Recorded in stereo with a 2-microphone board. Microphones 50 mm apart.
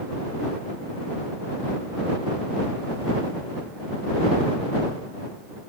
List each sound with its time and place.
Only background noise.